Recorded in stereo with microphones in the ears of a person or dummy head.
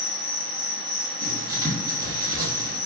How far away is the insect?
About 1.8 m.